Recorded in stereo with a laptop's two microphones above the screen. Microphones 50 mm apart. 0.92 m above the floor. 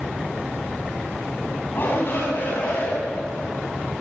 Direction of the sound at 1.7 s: 45° left (ahead or behind).